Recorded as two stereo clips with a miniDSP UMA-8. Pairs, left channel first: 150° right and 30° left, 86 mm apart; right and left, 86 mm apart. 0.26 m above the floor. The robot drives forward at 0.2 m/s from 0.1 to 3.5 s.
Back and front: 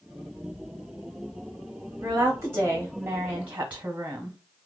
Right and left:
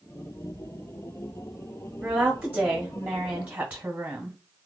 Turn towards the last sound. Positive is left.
turn(degrees=70)